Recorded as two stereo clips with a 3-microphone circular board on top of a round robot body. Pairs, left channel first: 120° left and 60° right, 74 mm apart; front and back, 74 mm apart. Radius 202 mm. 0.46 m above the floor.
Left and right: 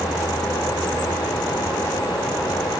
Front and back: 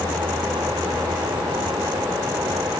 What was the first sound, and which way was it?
Only background noise.